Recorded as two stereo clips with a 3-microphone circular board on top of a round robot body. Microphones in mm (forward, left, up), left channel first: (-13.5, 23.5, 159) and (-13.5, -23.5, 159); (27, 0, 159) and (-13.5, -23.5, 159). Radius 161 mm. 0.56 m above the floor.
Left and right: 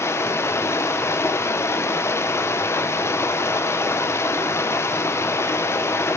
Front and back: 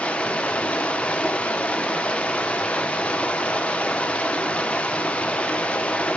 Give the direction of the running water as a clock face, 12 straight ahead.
9 o'clock.